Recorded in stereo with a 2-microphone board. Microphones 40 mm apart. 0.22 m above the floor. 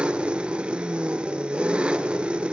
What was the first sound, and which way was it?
An engine running, 25° right (ahead or behind).